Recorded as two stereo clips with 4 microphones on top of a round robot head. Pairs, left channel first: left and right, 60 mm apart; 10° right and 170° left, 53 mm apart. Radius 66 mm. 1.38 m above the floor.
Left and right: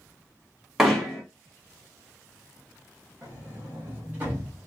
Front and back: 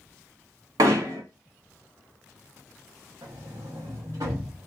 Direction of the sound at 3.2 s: 145° right.